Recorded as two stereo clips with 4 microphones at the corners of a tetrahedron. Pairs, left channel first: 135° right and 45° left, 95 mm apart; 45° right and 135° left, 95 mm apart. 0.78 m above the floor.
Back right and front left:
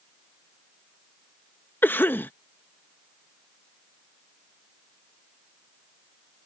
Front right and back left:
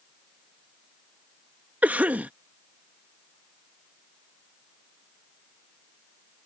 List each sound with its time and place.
1.8 s a cough: 175° right